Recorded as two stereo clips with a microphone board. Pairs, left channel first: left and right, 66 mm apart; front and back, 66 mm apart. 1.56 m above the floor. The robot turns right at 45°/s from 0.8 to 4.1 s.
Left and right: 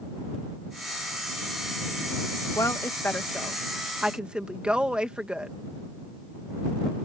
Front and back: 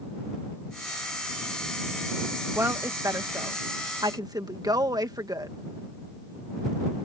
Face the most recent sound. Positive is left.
turn(degrees=-165)